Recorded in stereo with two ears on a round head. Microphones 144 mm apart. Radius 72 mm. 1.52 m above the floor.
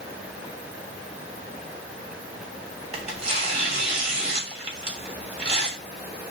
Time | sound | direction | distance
2.9 | tearing paper | 40° right (ahead or behind) | 3 m